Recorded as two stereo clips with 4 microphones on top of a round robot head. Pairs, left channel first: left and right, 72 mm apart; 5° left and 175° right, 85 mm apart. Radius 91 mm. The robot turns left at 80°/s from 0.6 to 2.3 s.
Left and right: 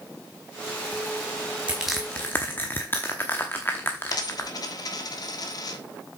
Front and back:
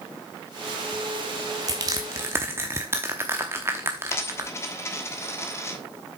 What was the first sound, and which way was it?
Crushing, 160° right.